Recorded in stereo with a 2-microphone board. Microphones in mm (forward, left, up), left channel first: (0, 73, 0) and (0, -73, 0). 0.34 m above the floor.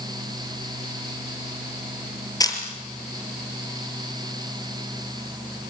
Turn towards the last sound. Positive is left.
turn(degrees=25)  # may be behind; listen again after turning